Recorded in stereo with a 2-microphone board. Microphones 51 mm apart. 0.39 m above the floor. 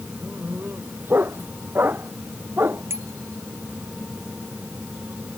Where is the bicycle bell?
60° right (ahead or behind).